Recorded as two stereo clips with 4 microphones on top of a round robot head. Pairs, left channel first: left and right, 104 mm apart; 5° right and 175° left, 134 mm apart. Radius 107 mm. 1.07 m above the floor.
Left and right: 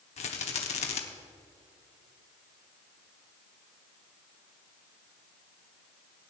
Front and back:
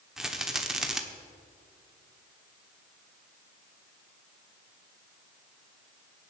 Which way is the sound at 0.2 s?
90° left.